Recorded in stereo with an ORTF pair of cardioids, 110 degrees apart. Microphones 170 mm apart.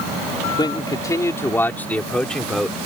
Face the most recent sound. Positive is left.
turn(degrees=0)